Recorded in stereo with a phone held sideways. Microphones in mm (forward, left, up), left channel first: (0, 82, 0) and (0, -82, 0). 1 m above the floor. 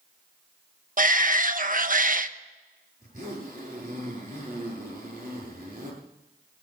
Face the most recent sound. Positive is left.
turn(degrees=-50)  # may be behind; listen again after turning